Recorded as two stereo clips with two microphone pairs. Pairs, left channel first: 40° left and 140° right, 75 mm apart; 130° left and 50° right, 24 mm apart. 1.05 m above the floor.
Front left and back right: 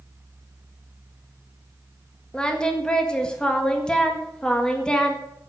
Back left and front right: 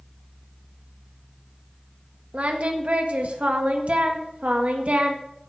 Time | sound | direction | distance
2.3 | singing | 35° right | 1.7 m